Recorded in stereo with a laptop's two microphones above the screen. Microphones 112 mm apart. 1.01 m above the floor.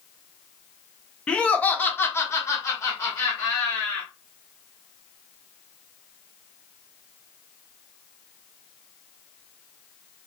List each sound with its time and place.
1.3 s laughter: 10° left (ahead or behind), 0.8 m; by 4.1 s 25° left (ahead or behind), 1.3 m